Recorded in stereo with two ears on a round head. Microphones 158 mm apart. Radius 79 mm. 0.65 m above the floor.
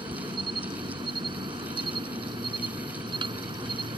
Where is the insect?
25° right (ahead or behind).